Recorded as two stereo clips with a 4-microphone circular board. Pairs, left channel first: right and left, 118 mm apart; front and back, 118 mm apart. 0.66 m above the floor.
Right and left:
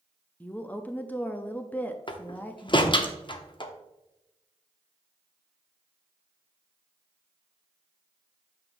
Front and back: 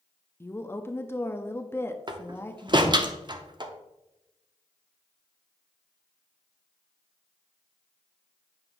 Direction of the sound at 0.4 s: 35° right.